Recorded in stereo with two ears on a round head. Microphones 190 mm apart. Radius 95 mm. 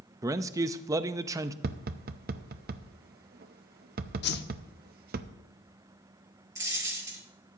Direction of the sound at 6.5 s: 15° right (ahead or behind).